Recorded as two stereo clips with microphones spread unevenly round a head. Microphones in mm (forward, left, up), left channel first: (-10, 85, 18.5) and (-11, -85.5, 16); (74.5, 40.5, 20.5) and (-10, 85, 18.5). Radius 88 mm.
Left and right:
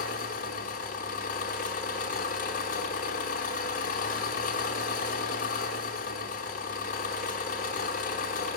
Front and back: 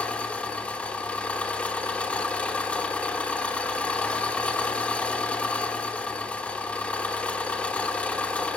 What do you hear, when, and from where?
0.0 s an engine running: 45° left, 1.2 m